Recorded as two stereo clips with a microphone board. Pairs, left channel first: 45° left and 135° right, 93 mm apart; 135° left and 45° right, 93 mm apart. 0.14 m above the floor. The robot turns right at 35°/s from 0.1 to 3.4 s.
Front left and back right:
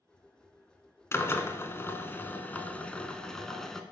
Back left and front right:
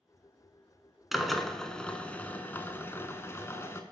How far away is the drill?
About 0.7 m.